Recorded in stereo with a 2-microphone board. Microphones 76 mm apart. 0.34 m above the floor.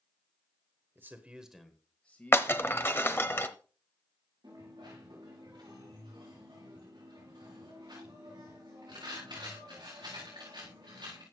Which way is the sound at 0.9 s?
30° right (ahead or behind).